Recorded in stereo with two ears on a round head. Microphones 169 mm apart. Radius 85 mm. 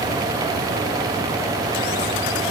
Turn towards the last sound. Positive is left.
No sound to turn to.